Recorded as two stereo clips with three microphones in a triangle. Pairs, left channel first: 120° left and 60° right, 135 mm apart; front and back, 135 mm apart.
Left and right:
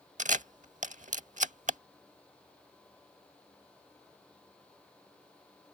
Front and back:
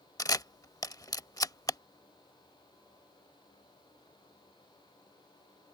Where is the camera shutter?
60° right.